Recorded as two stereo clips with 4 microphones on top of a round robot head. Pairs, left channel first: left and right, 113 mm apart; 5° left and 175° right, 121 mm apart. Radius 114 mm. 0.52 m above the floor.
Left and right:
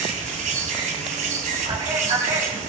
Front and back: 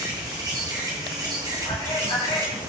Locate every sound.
0.0 s an insect: 110° right, 2.5 m
1.7 s a man speaking: 55° right, 4 m